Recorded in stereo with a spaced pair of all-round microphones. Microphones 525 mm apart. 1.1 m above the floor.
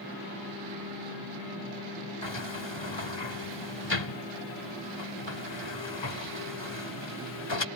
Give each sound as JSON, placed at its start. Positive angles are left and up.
{"t": 2.2, "sound": "a sliding door", "side_deg": 55}